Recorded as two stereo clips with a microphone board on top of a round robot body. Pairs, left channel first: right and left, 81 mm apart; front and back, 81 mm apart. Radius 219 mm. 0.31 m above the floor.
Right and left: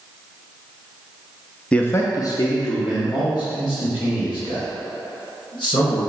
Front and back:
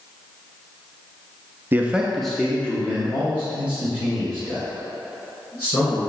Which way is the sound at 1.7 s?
155° right.